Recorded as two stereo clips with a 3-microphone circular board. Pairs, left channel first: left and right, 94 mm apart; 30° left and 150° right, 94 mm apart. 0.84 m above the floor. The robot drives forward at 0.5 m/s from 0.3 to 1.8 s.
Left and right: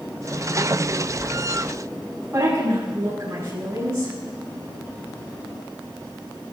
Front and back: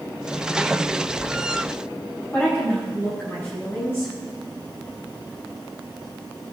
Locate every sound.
2.3 s a woman speaking: 35° right, 6 m